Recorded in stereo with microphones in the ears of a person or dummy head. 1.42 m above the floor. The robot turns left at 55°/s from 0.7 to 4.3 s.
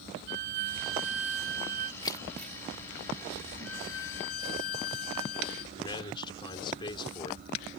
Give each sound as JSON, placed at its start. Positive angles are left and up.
{"t": 0.3, "sound": "a violin", "azimuth_deg": -65}
{"t": 2.0, "sound": "keys jangling", "side_deg": 30}
{"t": 3.6, "sound": "a violin", "azimuth_deg": 100}
{"t": 5.8, "sound": "a man speaking", "side_deg": 30}